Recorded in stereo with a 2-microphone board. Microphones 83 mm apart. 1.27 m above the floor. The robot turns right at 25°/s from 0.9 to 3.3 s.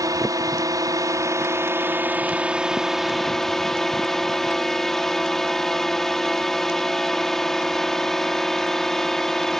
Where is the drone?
55° right; by 9.6 s 5° left.